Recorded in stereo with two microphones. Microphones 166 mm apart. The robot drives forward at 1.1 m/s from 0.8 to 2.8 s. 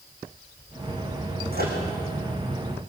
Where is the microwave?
70° right (ahead or behind), 5 m; by 1.8 s 65° right (ahead or behind), 5 m.